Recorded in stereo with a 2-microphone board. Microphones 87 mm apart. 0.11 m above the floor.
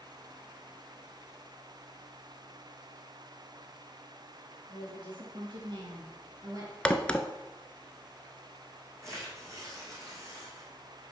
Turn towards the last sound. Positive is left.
turn(degrees=-35)  # may be behind; listen again after turning